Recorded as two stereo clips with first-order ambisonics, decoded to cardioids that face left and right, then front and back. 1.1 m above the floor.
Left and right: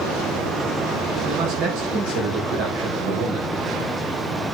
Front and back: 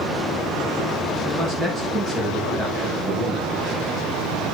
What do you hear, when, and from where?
1.2 s a man speaking: 110° right, 4.5 m